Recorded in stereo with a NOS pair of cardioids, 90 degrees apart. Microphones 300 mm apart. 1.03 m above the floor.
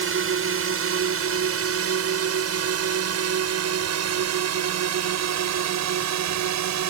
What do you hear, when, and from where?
0.0 s a drone: 45° right; by 6.9 s 70° right